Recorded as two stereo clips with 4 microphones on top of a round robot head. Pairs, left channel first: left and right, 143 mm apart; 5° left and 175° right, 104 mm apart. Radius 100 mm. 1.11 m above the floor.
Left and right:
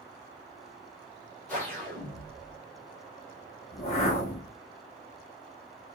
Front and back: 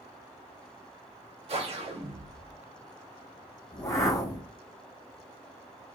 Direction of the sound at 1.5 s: 170° left.